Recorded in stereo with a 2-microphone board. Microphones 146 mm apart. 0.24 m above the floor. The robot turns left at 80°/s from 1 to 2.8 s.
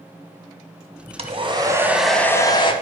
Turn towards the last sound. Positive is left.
turn(degrees=125)